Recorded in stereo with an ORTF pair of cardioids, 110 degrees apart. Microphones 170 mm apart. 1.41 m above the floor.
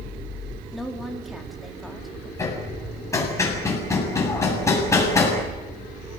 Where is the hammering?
15° left, 7.5 m.